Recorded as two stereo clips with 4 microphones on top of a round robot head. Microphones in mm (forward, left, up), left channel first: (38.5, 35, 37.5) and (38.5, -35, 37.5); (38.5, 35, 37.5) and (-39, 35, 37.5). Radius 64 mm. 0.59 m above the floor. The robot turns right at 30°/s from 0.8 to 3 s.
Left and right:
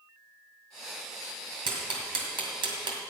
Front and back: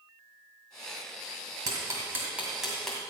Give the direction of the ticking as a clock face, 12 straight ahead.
4 o'clock.